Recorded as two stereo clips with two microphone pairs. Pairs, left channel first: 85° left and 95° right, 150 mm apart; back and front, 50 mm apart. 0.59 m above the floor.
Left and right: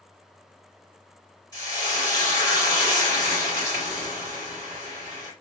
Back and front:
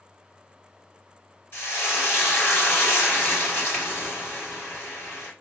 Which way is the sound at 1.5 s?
150° left.